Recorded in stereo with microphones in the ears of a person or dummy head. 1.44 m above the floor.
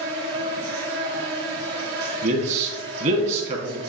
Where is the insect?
55° right (ahead or behind), 0.9 m.